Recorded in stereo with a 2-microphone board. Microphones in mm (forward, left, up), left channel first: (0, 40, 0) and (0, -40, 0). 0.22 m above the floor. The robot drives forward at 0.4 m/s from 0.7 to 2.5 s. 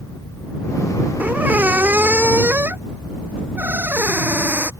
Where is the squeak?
20° right (ahead or behind); by 4.7 s 25° right (ahead or behind).